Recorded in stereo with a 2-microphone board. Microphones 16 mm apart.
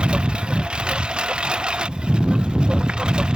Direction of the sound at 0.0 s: 75° right (ahead or behind).